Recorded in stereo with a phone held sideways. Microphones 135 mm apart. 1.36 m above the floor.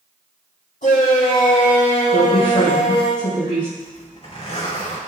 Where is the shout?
80° left, 3.5 m; by 3.1 s 35° left (ahead or behind), 3.5 m.